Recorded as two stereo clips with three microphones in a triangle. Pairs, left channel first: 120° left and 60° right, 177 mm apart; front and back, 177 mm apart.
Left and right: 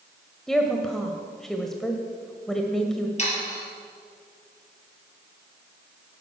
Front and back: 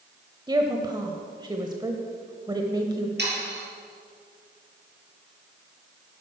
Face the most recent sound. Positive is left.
turn(degrees=170)